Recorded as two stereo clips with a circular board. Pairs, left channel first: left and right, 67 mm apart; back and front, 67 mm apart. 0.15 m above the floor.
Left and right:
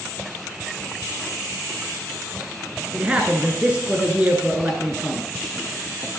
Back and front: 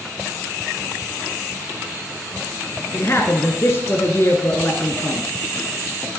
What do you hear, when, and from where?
2.9 s a man speaking: 155° right, 1.6 m